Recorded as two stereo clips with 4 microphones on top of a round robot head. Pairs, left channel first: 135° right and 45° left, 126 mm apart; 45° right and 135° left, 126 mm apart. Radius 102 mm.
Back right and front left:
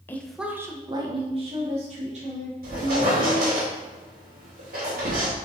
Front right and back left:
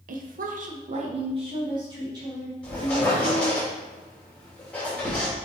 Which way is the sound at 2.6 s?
40° left.